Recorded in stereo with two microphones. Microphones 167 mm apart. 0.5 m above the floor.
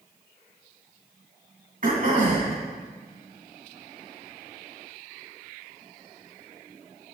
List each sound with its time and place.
1.8 s throat clearing: 60° right (ahead or behind), 3 m